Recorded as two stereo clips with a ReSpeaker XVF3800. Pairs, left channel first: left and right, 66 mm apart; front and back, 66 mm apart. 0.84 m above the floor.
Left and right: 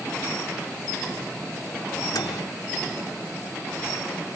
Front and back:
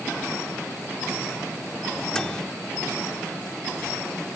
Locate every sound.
2.1 s a microwave: 80° left